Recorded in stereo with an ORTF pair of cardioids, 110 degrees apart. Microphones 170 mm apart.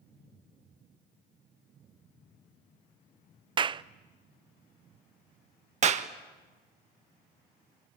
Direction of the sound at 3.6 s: 30° right.